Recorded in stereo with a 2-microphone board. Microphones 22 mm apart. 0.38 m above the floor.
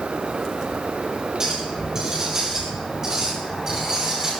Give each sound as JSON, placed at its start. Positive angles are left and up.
{"t": 1.4, "sound": "a clink", "side_deg": -25, "distance_m": 8.0}